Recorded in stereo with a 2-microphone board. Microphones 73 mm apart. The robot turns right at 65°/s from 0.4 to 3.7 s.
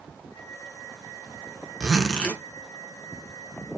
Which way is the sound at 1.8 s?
10° right.